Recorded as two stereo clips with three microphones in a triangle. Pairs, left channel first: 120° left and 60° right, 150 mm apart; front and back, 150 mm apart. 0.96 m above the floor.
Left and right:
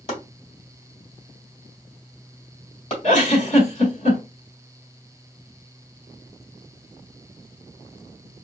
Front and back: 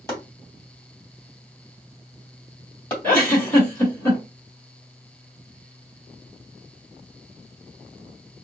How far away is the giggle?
About 2 m.